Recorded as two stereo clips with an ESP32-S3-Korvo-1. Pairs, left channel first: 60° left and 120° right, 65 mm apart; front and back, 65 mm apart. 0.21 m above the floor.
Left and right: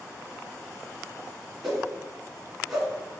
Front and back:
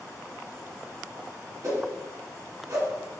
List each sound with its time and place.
1.6 s a whoosh: 150° left, 2 m